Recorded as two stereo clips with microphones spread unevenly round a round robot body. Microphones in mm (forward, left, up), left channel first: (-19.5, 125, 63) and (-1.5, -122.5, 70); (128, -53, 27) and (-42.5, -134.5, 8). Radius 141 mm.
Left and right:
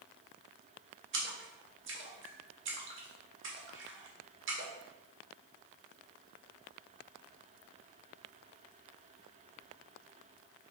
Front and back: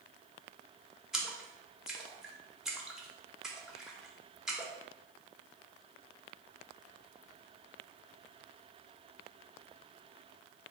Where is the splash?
70° right, 1.1 m.